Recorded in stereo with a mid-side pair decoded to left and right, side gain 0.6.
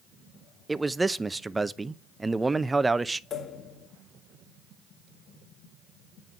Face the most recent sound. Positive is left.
turn(degrees=45)